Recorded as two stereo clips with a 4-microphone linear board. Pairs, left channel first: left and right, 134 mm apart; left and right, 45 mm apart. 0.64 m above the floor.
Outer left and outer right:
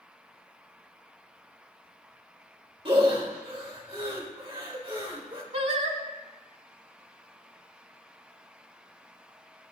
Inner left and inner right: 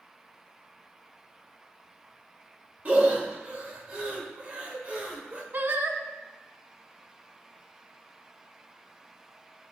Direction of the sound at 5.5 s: 50° right (ahead or behind).